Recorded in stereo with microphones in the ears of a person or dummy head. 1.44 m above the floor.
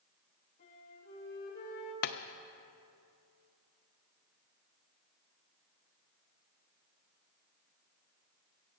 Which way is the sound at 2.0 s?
55° left (ahead or behind).